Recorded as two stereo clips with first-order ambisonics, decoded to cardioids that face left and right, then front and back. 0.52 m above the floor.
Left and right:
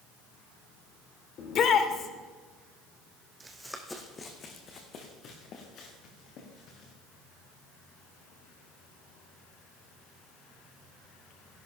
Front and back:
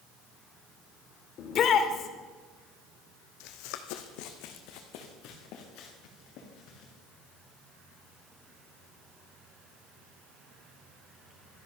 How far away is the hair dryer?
No hair dryer in this recording.